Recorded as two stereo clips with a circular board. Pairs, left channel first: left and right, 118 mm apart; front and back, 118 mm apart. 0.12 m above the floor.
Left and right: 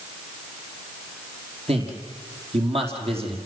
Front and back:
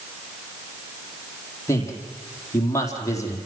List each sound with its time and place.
1.7 s a man speaking: 60° right, 4.5 m